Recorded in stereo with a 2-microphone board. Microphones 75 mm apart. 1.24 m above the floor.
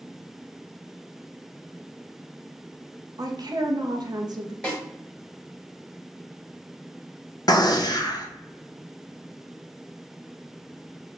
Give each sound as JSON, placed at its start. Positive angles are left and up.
{"t": 3.2, "sound": "a woman speaking", "side_deg": -65, "distance_m": 0.5}
{"t": 4.6, "sound": "a snare drum", "side_deg": 15, "distance_m": 1.1}
{"t": 7.5, "sound": "a gunshot", "side_deg": 60, "distance_m": 0.5}